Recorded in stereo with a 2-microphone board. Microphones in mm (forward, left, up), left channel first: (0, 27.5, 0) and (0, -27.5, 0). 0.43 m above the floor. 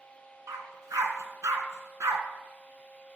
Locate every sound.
0.5 s a dog barking: 80° right, 2 m